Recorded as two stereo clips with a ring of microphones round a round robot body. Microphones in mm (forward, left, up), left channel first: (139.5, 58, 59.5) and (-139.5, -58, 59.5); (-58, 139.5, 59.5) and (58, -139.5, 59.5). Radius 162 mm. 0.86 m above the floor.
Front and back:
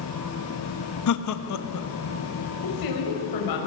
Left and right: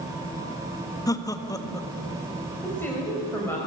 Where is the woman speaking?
30° left, 4.5 m.